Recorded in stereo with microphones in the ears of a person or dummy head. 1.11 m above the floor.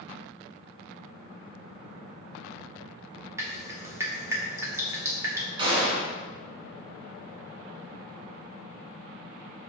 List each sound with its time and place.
3.4 s dripping: 15° right (ahead or behind), 1.5 m
5.6 s a gunshot: 25° right (ahead or behind), 2.5 m